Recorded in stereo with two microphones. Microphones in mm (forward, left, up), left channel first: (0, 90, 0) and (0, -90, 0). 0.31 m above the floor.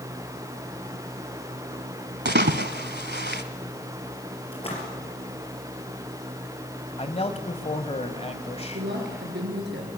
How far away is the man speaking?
About 1.5 m.